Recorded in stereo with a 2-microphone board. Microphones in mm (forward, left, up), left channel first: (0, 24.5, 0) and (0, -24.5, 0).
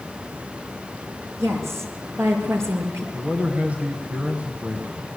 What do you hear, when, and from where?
1.4 s a woman speaking: 60° right (ahead or behind), 5 m; by 3.0 s 65° right (ahead or behind), 5.5 m
3.1 s a man speaking: 30° right (ahead or behind), 2 m